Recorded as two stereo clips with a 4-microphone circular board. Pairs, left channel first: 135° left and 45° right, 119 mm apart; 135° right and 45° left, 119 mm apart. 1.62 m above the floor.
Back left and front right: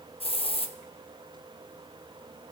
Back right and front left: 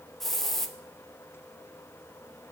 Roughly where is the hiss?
Behind left.